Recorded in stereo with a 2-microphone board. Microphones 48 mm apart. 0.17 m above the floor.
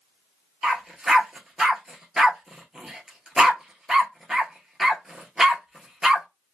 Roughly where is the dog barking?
Centre.